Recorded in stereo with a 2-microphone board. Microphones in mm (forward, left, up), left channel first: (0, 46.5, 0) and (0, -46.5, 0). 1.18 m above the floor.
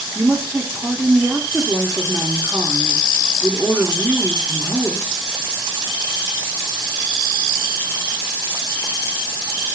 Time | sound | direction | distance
0.1 | a woman speaking | centre (ahead or behind) | 0.8 m